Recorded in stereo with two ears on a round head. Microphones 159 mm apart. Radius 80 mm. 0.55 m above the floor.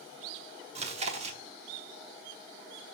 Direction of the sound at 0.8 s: 35° right (ahead or behind).